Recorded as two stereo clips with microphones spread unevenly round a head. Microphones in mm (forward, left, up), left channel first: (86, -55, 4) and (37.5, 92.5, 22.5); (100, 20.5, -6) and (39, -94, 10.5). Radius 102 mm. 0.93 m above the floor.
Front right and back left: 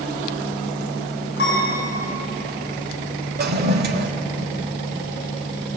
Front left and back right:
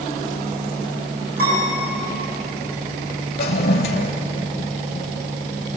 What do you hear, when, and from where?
1.4 s a piano: 120° right, 9 m
3.4 s a toilet flushing: 90° left, 1.8 m